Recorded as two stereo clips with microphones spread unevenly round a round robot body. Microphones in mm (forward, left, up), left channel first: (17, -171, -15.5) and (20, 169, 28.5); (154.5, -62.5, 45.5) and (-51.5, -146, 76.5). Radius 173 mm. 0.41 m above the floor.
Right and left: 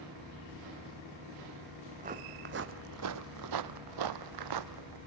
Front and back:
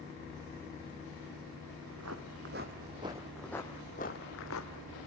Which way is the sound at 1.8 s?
160° left.